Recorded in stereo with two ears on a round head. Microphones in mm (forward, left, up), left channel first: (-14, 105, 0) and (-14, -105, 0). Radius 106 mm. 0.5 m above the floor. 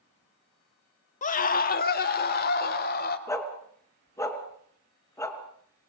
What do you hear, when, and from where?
1.2 s a scream: 30° left (ahead or behind), 1.2 m; by 3.2 s 40° left (ahead or behind), 2.5 m
3.3 s a dog barking: 15° left (ahead or behind), 2.5 m